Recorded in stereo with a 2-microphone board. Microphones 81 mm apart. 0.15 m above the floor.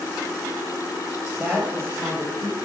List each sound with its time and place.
1.4 s a woman speaking: 25° right (ahead or behind), 3.5 m; by 2.5 s 40° right (ahead or behind), 4 m